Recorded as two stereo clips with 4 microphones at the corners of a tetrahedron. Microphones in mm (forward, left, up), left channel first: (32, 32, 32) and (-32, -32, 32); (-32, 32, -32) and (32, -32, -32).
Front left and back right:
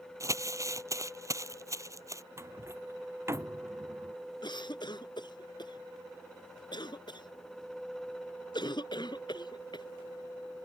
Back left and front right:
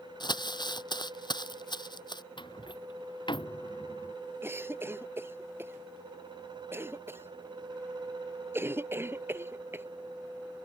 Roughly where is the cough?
Ahead.